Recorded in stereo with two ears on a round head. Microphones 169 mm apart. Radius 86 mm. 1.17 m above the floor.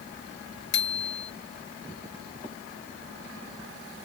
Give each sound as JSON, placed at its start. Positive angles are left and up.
{"t": 0.7, "sound": "a bicycle bell", "side_deg": 60}